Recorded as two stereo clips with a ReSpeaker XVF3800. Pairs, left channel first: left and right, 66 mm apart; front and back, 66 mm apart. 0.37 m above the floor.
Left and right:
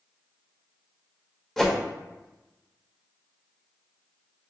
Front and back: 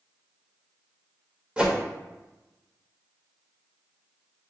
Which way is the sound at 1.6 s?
170° left.